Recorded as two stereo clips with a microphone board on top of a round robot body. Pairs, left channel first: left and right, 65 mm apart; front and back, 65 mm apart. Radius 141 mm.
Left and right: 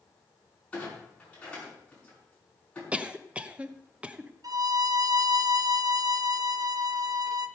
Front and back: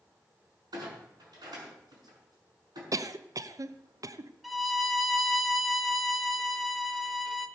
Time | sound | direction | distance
0.7 | a clunk | 165° left | 5.5 m
2.9 | a cough | 160° right | 1.0 m
4.4 | a violin | 90° right | 1.4 m